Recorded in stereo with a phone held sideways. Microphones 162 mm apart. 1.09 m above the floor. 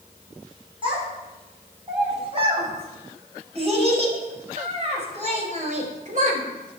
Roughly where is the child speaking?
Right.